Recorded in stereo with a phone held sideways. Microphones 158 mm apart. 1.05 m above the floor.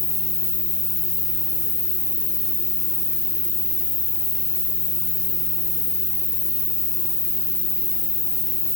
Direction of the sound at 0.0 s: Centre (ahead or behind).